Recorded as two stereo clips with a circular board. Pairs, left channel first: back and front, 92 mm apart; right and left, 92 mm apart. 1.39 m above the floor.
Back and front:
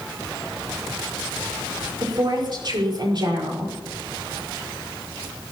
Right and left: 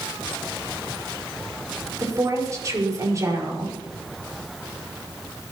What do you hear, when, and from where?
2.0 s a woman speaking: 35° left, 5.5 m